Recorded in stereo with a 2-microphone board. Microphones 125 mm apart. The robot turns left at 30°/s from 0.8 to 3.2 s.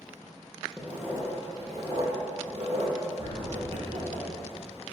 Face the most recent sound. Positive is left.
turn(degrees=-20)  # may be behind; listen again after turning